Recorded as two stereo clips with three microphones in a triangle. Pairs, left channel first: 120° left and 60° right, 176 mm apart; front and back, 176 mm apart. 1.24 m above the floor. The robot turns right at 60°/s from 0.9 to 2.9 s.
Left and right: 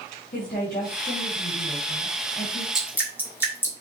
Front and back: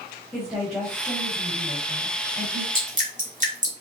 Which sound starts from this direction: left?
A woman speaking, at 0.3 s.